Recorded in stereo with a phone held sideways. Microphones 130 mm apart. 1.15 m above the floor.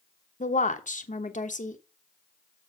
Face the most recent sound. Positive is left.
turn(degrees=80)